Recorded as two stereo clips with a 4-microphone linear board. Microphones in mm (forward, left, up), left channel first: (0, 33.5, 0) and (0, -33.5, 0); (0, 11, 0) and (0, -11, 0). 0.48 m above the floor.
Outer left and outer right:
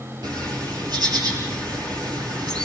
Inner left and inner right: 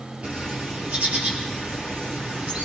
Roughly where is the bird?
Right.